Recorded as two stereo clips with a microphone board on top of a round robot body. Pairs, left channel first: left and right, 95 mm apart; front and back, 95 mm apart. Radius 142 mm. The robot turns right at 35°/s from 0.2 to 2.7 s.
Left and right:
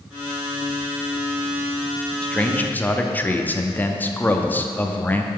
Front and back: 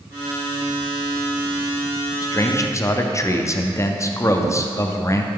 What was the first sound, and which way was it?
A man speaking, 15° left.